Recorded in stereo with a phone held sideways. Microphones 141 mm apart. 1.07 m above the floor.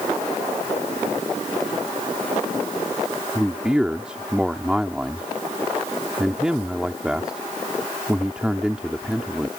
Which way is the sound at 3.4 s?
5° right (ahead or behind).